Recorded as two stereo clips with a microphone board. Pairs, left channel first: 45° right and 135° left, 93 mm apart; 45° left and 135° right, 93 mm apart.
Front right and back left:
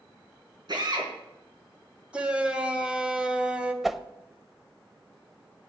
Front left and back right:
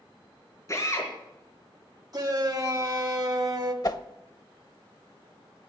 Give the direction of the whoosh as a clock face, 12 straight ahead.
10 o'clock.